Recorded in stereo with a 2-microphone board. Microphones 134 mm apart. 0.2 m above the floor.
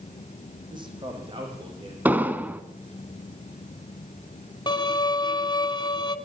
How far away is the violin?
About 1.3 m.